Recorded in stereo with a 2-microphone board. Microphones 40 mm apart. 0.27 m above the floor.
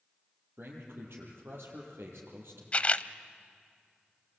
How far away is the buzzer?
I don't hear a buzzer.